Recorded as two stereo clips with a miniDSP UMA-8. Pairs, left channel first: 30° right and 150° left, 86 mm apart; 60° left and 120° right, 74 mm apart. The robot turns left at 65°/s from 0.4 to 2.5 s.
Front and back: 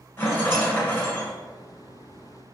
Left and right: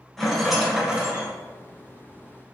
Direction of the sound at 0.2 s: 25° right.